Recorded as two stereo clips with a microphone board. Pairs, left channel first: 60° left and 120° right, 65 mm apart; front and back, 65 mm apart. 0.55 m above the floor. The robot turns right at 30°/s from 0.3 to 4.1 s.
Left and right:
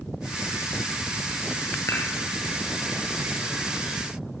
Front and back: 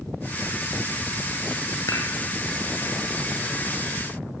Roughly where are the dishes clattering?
Ahead.